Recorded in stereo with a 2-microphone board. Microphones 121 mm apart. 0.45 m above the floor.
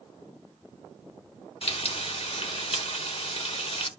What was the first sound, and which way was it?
Frying, 55° left (ahead or behind).